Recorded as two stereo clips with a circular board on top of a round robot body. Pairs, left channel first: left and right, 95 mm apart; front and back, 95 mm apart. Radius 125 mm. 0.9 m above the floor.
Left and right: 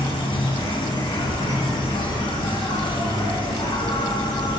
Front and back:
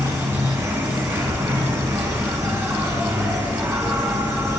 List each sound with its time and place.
0.0 s an insect: 125° left, 5 m